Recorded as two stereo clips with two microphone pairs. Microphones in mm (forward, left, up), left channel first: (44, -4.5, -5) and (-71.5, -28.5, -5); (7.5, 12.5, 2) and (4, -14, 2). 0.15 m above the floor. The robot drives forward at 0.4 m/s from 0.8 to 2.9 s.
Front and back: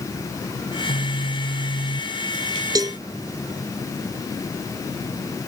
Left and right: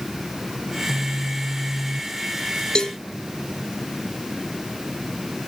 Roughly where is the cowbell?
Behind left.